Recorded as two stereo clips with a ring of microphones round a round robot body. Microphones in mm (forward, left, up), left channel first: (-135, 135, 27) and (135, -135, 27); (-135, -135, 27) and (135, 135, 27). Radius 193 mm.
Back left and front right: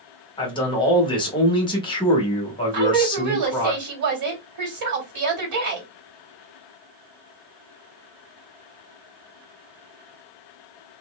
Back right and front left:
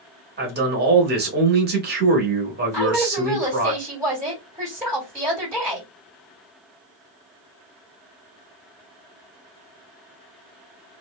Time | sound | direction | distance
0.4 | a man speaking | 70° left | 0.9 m
2.7 | a woman speaking | 35° right | 1.7 m